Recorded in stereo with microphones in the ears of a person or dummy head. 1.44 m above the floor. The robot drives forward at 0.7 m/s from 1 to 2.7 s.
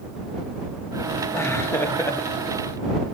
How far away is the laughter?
About 2.5 m.